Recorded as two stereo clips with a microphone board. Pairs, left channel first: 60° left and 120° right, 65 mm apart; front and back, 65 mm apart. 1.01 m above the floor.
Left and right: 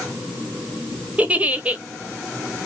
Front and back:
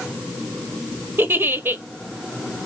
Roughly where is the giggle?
Behind.